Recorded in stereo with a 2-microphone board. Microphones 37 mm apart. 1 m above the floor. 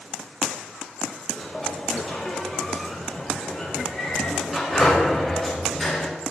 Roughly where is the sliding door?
Centre.